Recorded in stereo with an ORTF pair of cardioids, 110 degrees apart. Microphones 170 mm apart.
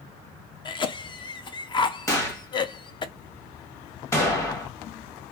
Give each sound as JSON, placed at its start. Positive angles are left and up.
{"t": 0.7, "sound": "a cough", "azimuth_deg": 30, "distance_m": 0.6}
{"t": 2.1, "sound": "a gunshot", "azimuth_deg": 20, "distance_m": 1.2}